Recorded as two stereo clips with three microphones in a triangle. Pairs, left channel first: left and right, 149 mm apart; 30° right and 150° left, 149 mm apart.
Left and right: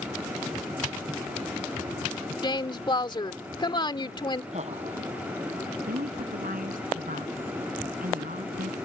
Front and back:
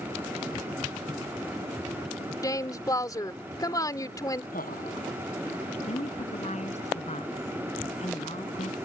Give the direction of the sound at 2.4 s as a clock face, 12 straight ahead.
11 o'clock.